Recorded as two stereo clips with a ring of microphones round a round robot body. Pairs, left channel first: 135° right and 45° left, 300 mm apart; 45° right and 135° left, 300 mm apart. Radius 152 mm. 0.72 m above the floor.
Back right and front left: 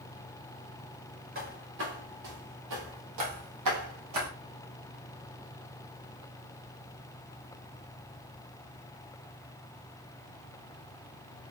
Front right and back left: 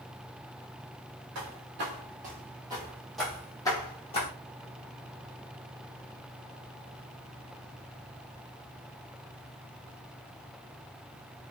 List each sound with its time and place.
1.4 s footsteps: 100° left, 1.2 m; by 4.3 s 20° left, 1.4 m